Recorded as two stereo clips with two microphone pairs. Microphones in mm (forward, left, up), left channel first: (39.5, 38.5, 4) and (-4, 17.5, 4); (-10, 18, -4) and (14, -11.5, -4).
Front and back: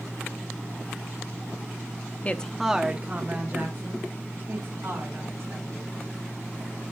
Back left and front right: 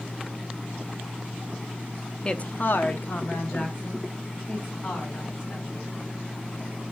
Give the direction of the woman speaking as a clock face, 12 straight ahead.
10 o'clock.